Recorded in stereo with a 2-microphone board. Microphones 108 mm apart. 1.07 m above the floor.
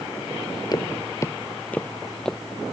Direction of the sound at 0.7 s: 40° left (ahead or behind).